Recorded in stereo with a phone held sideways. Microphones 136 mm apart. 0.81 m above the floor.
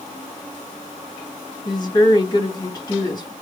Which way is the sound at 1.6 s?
30° left (ahead or behind).